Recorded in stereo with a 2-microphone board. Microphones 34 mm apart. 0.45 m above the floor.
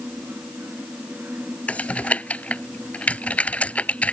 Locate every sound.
1.7 s typing on a keyboard: 45° left (ahead or behind)